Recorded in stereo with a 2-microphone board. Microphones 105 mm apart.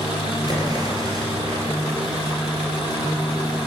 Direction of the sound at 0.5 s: 35° right (ahead or behind).